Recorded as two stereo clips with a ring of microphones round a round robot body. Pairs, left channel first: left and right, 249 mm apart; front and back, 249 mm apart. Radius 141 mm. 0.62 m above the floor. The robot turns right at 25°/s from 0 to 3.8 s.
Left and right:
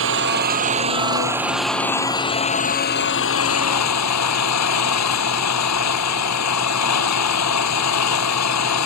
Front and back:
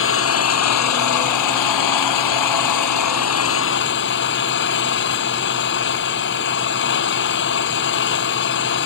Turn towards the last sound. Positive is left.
turn(degrees=55)